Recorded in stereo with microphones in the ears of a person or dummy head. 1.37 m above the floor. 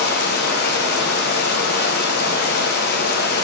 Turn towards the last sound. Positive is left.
turn(degrees=55)  # may be behind; listen again after turning